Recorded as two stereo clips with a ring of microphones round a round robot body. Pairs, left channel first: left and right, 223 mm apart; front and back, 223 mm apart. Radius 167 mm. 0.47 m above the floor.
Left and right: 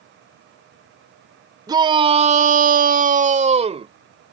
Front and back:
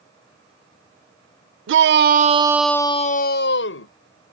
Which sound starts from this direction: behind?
A shout, at 1.7 s.